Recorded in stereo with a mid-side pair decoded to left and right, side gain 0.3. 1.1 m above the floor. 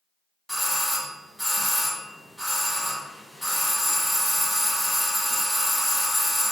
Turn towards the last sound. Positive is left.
turn(degrees=-5)